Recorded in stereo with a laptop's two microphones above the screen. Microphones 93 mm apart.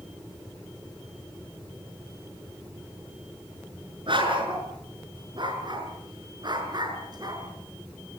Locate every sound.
4.1 s a dog barking: 60° right (ahead or behind), 6.5 m; by 7.4 s 45° right (ahead or behind), 6 m